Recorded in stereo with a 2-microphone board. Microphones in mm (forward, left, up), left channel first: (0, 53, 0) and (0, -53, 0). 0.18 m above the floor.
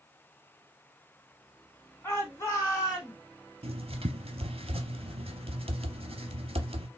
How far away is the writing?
About 0.6 m.